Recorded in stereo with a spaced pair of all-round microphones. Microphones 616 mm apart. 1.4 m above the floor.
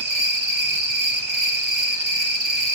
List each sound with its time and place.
0.0 s an insect: 45° right (ahead or behind), 1.4 m